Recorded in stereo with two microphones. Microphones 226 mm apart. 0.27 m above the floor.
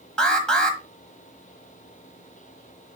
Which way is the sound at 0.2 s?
5° left (ahead or behind).